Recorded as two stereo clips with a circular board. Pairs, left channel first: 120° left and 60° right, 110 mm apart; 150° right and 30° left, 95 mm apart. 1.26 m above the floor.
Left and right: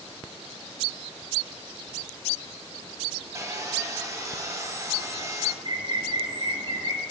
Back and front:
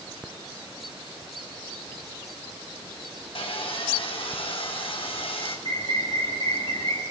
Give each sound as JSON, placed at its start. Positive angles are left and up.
{"t": 3.4, "sound": "sawing", "azimuth_deg": -125, "distance_m": 4.5}
{"t": 5.7, "sound": "a bird", "azimuth_deg": -110, "distance_m": 5.5}